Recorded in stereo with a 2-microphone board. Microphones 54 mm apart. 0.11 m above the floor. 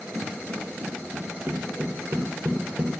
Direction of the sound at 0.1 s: 20° right (ahead or behind).